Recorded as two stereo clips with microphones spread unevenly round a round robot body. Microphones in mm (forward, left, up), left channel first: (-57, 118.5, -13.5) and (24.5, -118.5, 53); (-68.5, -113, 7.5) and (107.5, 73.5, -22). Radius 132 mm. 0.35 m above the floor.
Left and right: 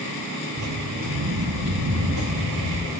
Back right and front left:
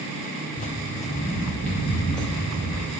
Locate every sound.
0.6 s footsteps: 85° right, 0.6 m; by 2.9 s 45° right, 4 m